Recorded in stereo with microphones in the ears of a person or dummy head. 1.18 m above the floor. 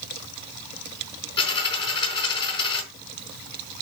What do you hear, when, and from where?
1.4 s a dropped coin: 35° left (ahead or behind), 4.5 m